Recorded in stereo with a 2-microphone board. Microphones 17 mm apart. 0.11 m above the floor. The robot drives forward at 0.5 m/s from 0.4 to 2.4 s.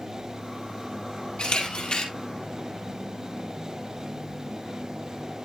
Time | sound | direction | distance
1.4 | a camera shutter | 55° left (ahead or behind) | 2.5 m